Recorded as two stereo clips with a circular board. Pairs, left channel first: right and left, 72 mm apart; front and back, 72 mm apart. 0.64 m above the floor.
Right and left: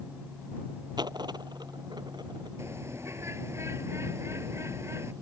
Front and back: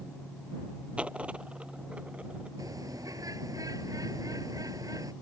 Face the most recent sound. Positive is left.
turn(degrees=140)